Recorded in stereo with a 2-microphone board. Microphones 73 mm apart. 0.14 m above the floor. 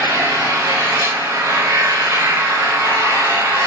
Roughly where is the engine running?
Right.